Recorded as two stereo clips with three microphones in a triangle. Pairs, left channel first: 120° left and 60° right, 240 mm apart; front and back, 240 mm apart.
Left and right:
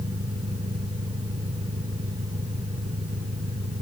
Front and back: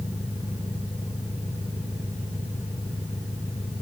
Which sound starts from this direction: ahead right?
An engine running, at 0.0 s.